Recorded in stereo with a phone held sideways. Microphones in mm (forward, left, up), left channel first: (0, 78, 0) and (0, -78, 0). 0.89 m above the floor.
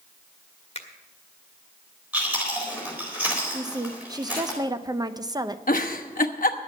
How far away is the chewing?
About 4 m.